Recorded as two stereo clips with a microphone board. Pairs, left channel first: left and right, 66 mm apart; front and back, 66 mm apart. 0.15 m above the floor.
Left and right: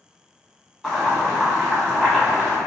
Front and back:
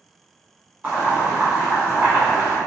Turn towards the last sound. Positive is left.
turn(degrees=165)